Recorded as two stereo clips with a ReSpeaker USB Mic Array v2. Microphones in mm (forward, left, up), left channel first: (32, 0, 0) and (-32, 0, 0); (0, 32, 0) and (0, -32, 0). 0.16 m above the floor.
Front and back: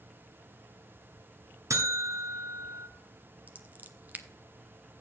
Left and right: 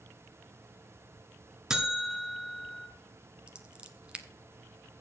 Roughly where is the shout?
I don't hear a shout.